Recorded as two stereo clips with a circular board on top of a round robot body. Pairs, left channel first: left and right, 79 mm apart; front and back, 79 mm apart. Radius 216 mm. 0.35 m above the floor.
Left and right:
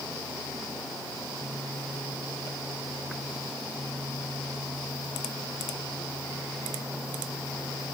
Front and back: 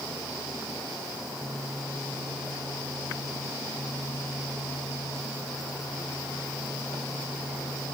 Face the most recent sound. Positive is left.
No sound to turn to.